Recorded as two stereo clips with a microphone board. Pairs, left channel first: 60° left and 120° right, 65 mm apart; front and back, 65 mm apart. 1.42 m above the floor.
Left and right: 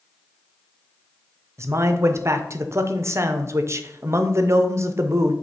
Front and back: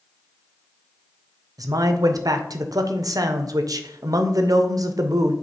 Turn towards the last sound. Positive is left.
turn(degrees=-160)